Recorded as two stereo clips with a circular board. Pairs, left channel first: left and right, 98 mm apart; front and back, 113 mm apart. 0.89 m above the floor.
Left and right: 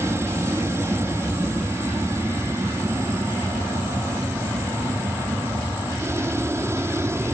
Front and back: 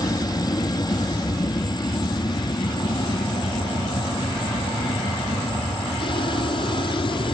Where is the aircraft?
35° right; by 7.3 s 30° right.